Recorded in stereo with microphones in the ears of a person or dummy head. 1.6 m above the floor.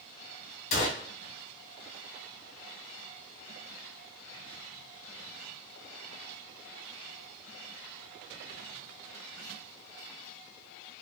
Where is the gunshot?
50° left (ahead or behind), 0.8 m.